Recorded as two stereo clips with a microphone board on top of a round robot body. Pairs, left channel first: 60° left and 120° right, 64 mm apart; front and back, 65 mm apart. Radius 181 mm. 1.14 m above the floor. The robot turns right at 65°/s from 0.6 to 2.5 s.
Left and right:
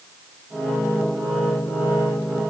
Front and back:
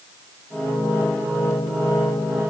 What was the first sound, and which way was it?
Only background noise.